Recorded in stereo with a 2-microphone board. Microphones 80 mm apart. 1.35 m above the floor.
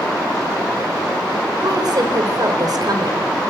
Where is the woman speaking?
55° right (ahead or behind), 4.5 m.